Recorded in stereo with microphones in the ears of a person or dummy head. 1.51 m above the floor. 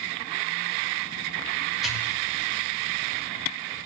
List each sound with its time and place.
1.8 s a pop: 5° right (ahead or behind), 4 m